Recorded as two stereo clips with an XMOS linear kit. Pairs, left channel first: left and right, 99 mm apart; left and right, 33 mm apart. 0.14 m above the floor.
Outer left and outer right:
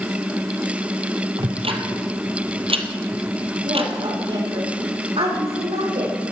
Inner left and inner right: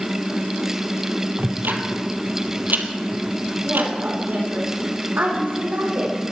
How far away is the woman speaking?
About 7 m.